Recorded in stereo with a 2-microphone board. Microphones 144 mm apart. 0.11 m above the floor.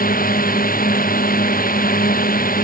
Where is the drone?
80° left.